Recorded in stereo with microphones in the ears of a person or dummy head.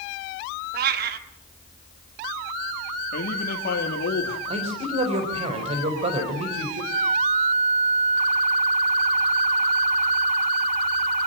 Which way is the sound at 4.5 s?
30° right (ahead or behind).